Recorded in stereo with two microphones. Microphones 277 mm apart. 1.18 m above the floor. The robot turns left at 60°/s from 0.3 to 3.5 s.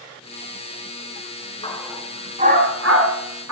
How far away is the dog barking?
About 4 m.